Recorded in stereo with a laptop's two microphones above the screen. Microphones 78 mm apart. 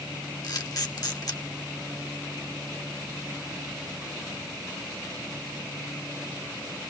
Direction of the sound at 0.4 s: 55° left (ahead or behind).